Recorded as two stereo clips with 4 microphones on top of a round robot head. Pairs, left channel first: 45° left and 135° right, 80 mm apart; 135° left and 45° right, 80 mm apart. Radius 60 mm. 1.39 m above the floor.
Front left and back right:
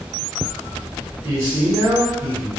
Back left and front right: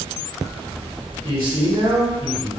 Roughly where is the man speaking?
Right.